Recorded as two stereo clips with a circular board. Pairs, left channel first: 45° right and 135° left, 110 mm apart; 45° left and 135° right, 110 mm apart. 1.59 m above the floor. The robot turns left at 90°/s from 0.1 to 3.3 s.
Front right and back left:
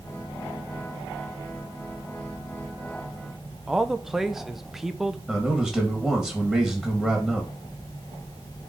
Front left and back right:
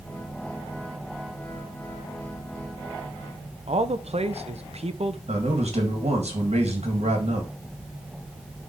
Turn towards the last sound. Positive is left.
turn(degrees=-130)